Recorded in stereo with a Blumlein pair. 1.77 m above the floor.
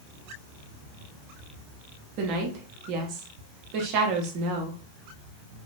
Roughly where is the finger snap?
No finger snap in this recording.